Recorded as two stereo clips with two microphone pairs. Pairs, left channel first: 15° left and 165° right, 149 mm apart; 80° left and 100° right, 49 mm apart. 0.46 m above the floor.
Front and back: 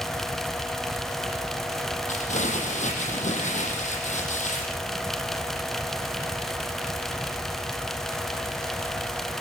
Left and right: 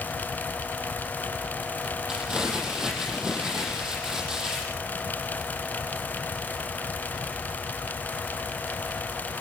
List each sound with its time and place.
2.1 s crumpling: 25° right, 7.5 m